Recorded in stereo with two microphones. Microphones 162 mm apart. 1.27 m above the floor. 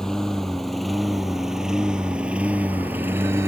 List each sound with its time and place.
0.0 s a lawn mower: 5° left (ahead or behind); by 3.5 s 15° right (ahead or behind)